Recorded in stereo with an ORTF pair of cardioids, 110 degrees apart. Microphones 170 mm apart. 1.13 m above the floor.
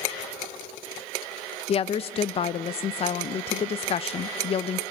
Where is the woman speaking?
35° left, 0.6 m.